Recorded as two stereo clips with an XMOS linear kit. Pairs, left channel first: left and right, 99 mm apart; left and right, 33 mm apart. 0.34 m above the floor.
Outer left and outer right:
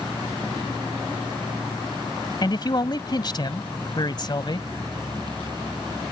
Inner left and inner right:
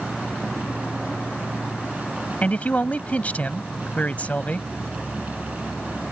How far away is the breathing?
No breathing in this recording.